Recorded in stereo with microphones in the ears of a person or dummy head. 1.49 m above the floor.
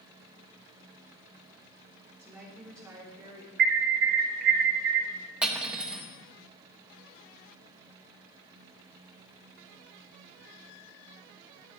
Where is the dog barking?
I don't hear a dog barking.